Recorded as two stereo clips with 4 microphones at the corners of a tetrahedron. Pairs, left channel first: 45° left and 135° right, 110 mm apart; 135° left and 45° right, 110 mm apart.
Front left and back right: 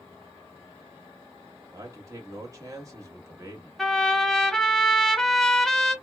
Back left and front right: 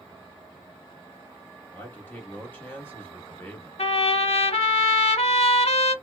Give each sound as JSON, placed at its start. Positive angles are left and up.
{"t": 1.7, "sound": "a man speaking", "azimuth_deg": -170, "distance_m": 0.9}
{"t": 3.8, "sound": "a trumpet", "azimuth_deg": 130, "distance_m": 0.5}